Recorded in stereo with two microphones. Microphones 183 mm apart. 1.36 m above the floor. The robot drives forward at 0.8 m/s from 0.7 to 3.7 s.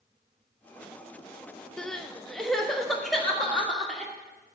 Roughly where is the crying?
Centre.